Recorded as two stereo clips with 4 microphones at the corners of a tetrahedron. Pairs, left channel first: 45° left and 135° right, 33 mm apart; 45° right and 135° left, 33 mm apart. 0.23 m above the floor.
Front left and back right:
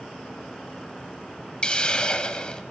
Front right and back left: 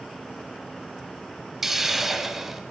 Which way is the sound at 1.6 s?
65° left.